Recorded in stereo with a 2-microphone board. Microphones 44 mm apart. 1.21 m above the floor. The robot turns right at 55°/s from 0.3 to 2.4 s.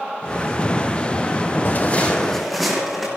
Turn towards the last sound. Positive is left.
turn(degrees=-5)  # may be behind; listen again after turning